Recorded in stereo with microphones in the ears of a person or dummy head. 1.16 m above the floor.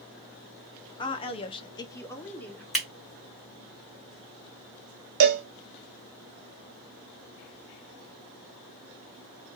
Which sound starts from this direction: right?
A cowbell, at 5.2 s.